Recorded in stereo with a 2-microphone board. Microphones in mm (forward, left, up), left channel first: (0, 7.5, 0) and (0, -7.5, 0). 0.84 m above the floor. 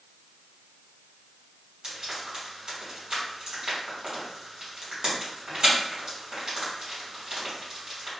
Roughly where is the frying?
Right.